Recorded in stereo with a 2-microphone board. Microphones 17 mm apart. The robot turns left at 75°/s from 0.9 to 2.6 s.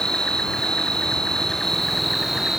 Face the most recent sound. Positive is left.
turn(degrees=-35)